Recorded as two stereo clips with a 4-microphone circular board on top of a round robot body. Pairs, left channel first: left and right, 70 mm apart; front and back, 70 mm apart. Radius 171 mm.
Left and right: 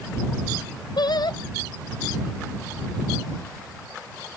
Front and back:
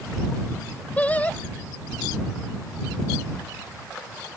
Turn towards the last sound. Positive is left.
turn(degrees=70)